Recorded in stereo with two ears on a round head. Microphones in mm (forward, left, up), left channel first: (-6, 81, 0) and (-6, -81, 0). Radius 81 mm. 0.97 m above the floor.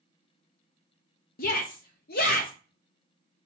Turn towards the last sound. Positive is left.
turn(degrees=50)  # may be behind; listen again after turning